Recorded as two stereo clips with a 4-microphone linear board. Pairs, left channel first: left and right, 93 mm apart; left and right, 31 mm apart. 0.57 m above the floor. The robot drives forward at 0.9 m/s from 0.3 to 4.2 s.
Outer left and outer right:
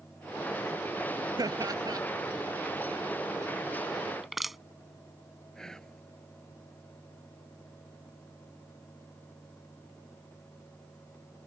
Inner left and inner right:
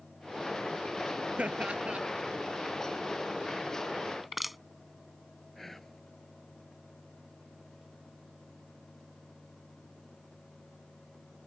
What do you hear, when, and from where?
1.4 s laughter: 45° right (ahead or behind)
4.2 s crushing: centre (ahead or behind)
5.5 s whispering: 5° left (ahead or behind)